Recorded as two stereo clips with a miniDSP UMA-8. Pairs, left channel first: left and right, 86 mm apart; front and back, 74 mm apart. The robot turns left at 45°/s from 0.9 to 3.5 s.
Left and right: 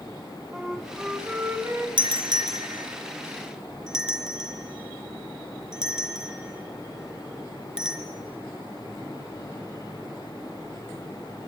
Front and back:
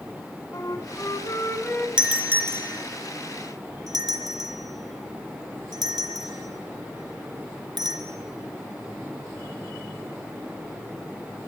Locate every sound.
0.5 s a flute: 5° right, 2 m; by 1.9 s 50° right, 2 m
2.0 s a doorbell: 100° right, 3.5 m; by 8.0 s 170° right, 3.5 m